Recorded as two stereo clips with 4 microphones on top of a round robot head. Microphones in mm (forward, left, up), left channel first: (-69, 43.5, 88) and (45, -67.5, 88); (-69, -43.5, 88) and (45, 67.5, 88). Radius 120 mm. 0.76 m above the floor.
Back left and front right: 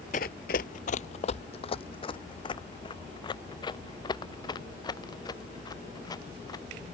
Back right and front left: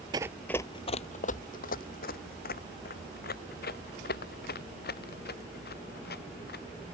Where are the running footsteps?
100° left; by 6.6 s 160° right.